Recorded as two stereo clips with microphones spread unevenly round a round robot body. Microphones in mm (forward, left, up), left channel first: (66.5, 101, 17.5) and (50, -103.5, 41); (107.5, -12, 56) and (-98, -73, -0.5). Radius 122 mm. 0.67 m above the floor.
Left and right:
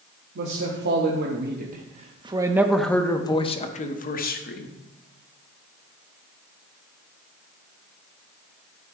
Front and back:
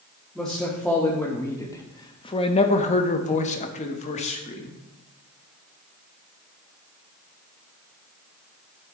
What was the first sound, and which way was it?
A man speaking, 80° right.